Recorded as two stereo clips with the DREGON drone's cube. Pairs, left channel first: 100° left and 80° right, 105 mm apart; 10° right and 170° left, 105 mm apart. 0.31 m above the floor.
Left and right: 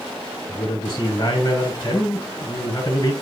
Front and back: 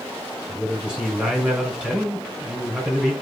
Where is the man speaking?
90° left, 1.7 m.